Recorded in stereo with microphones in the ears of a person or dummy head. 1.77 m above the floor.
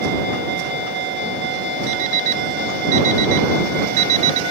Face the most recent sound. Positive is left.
turn(degrees=-50)  # may be behind; listen again after turning